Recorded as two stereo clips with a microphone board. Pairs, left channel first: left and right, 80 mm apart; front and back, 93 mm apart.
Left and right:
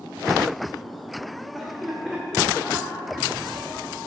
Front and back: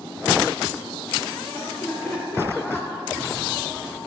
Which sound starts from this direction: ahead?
Laughter, at 1.5 s.